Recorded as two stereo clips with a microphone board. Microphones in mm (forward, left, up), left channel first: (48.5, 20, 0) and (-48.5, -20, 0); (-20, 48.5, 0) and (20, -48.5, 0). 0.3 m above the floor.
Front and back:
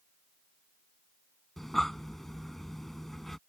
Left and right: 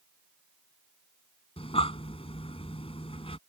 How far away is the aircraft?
I don't hear an aircraft.